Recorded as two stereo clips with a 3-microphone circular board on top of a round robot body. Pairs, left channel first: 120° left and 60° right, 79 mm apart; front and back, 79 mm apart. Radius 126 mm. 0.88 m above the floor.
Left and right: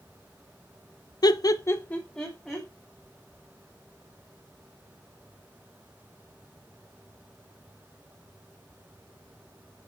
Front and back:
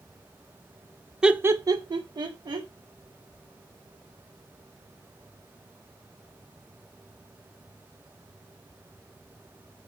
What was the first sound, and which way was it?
Laughter, 100° left.